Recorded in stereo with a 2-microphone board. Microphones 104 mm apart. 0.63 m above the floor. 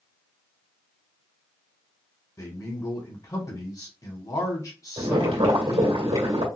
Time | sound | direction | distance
2.4 | a man speaking | 40° left (ahead or behind) | 1.6 m
5.0 | boiling | 70° right (ahead or behind) | 2 m